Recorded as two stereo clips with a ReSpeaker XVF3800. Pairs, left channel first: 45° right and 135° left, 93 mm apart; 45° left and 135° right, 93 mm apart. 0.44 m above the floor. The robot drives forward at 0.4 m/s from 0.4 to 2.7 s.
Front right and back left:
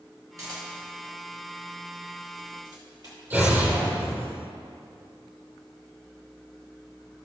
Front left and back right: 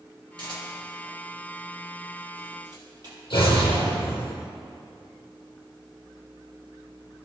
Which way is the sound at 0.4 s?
175° right.